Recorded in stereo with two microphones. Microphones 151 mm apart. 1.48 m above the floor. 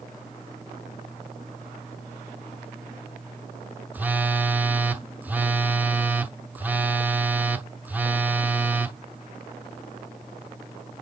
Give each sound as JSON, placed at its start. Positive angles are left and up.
{"t": 3.9, "sound": "a phone buzzing", "side_deg": -10, "distance_m": 0.7}